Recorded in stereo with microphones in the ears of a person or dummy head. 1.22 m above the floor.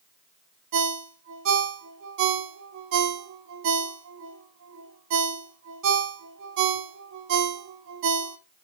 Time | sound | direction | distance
0.7 | a ringtone | 65° right (ahead or behind) | 1.1 m